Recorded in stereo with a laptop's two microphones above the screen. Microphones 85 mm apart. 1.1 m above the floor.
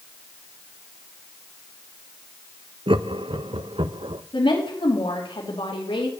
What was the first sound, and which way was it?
Laughter, 70° right (ahead or behind).